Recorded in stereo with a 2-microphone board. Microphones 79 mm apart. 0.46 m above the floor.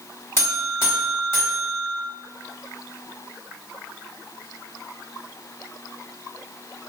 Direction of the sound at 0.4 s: 35° left (ahead or behind).